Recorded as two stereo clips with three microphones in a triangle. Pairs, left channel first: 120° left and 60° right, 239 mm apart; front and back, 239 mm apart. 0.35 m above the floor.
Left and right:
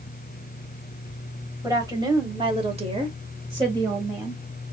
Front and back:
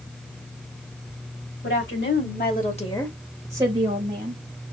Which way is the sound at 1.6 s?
15° left.